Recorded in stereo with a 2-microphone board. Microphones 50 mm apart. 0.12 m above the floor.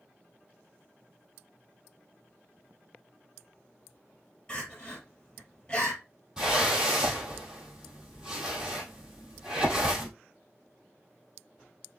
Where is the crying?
20° left (ahead or behind), 3 m.